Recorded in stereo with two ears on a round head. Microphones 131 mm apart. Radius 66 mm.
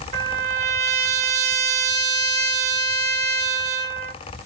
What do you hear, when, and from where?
0.1 s a trumpet: 45° right (ahead or behind), 1.1 m